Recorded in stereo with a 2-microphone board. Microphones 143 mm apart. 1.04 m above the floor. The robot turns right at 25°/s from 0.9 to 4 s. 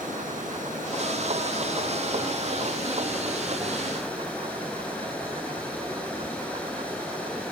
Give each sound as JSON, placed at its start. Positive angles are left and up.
{"t": 0.0, "sound": "running water", "azimuth_deg": -65, "distance_m": 6.5}